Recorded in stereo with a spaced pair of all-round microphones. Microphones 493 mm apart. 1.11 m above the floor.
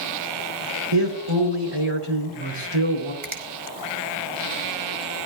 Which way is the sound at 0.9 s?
85° right.